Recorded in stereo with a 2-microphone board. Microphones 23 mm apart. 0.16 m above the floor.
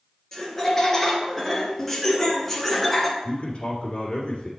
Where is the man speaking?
45° left (ahead or behind), 2 m.